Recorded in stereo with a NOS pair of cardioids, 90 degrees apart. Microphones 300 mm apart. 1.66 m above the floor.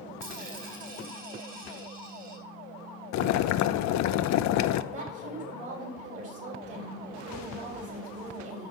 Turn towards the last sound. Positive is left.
turn(degrees=-55)